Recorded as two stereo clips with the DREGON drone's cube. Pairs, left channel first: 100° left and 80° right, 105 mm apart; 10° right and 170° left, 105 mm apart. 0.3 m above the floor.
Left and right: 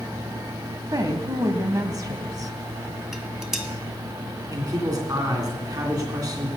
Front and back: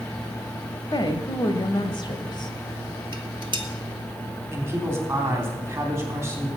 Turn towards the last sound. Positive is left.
turn(degrees=-130)